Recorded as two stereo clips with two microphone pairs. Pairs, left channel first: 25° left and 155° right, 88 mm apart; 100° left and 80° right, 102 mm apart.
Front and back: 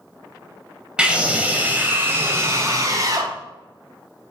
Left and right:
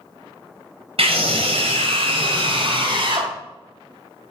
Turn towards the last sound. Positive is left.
turn(degrees=-110)